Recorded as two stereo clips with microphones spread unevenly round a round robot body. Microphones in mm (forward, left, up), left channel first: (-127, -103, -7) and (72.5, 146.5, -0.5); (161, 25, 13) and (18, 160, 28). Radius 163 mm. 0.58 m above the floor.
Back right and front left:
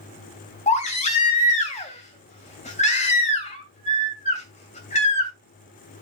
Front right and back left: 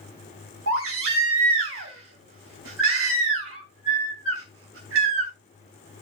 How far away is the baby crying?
About 2.5 m.